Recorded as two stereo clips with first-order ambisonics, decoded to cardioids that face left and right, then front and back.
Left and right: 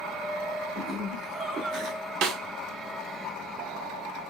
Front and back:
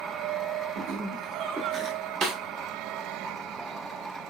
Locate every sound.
0.8 s laughter: 160° right, 1.5 m; by 2.1 s 70° right, 1.3 m
2.2 s a snare drum: 115° right, 1.2 m